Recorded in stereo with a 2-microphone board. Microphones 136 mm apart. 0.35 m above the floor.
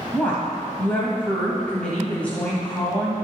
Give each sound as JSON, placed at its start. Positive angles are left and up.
{"t": 0.1, "sound": "a woman speaking", "side_deg": 10, "distance_m": 1.6}